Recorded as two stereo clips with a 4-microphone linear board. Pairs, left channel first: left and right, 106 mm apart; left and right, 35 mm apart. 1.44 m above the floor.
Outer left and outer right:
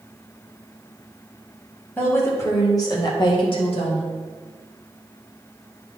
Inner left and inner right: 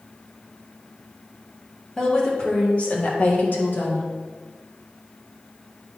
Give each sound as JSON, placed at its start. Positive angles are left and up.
{"t": 2.0, "sound": "a woman speaking", "side_deg": 20, "distance_m": 2.0}